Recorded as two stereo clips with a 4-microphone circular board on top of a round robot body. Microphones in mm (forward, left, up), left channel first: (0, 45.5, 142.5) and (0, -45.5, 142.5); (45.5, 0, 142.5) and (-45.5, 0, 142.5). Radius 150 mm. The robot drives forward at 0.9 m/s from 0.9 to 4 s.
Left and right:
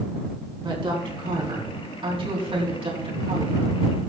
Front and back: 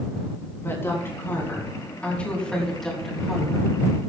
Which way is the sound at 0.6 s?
65° right.